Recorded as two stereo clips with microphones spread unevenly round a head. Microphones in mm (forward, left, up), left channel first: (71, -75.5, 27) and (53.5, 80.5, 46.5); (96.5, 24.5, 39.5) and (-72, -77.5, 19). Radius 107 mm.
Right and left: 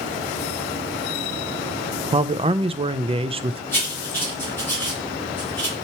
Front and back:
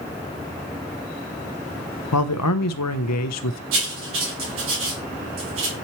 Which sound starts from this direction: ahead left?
A man speaking, at 2.1 s.